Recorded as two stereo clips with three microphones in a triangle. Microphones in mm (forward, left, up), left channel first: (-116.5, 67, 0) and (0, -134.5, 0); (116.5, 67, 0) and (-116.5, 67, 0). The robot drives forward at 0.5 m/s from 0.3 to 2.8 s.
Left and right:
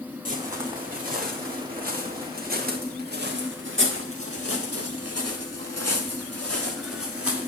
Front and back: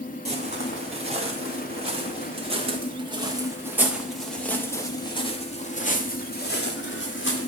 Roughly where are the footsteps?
Behind right.